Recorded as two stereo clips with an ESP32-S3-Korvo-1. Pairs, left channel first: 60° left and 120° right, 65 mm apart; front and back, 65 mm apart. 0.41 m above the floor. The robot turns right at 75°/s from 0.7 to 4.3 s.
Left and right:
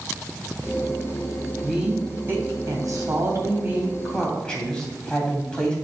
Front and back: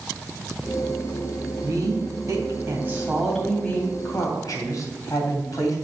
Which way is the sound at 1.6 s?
145° left.